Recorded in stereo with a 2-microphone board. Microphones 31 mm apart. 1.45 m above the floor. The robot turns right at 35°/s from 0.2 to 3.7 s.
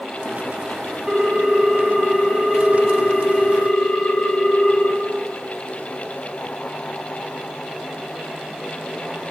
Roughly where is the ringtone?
Ahead right.